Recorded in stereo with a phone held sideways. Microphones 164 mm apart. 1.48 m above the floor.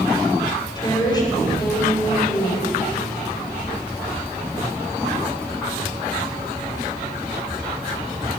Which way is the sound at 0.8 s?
25° left (ahead or behind).